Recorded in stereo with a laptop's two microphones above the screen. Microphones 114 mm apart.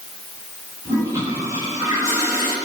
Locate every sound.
0.8 s a toilet flushing: 25° right (ahead or behind), 8.5 m